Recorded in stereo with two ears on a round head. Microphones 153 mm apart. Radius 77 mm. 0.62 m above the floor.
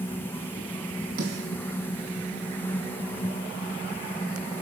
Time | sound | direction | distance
1.2 | a snare drum | 65° right (ahead or behind) | 5.5 m